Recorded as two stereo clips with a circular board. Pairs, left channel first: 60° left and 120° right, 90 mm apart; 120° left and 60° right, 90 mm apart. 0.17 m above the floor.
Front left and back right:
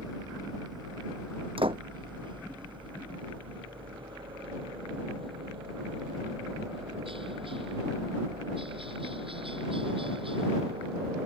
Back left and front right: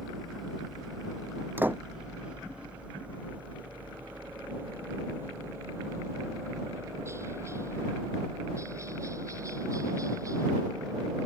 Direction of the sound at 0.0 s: 155° right.